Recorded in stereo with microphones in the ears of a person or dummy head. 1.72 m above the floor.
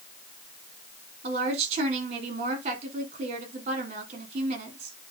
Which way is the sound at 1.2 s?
35° right (ahead or behind).